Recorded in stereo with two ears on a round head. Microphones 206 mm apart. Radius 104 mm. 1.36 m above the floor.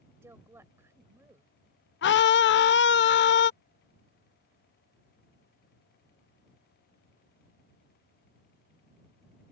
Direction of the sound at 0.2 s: 10° right (ahead or behind).